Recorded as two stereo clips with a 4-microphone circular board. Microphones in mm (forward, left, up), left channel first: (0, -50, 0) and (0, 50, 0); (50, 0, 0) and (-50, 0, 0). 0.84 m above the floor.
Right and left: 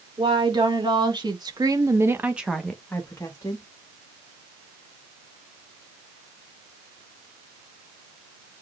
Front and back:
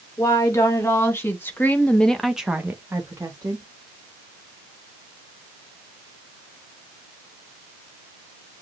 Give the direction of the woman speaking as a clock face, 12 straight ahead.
10 o'clock.